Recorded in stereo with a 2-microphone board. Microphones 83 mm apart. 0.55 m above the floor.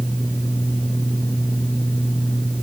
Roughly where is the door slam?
No door slam in this recording.